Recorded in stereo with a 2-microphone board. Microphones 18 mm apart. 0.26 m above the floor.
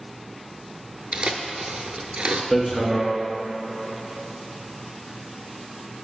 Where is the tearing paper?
85° right, 0.6 m.